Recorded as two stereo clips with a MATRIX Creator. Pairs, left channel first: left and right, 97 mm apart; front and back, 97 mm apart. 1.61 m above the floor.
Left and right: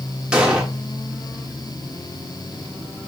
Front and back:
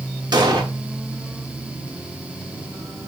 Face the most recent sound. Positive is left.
turn(degrees=-170)